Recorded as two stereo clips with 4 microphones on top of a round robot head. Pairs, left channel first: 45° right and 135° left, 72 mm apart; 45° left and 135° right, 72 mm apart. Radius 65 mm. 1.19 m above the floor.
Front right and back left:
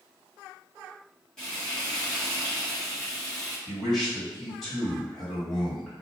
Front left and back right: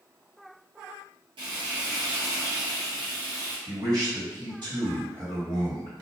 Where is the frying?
125° right, 1.2 m.